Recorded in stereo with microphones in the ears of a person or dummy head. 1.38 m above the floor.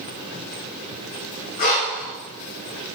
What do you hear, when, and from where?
1.6 s breathing: 45° left (ahead or behind), 0.7 m